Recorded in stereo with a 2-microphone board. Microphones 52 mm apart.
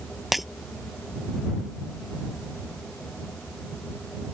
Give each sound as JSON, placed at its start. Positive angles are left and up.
{"t": 0.3, "sound": "breaking glass", "side_deg": -5}